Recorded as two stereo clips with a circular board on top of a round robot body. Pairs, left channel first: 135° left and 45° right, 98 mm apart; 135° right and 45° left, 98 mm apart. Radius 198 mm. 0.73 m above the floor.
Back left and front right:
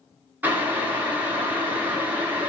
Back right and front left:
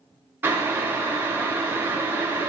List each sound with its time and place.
0.4 s boiling: 5° left, 1.1 m